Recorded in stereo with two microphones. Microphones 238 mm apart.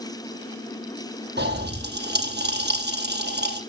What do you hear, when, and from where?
1.4 s a pop: 45° right (ahead or behind), 4 m